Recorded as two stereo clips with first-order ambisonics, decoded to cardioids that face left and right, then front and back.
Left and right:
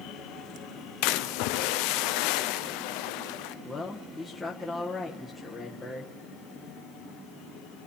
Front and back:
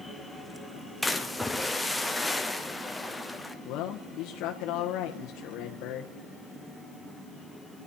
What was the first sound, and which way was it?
A splash, 90° left.